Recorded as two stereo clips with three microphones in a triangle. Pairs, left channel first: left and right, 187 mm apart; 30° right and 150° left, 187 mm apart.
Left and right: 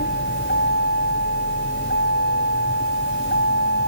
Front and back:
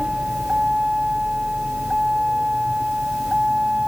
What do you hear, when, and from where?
0.0 s a vehicle: 65° left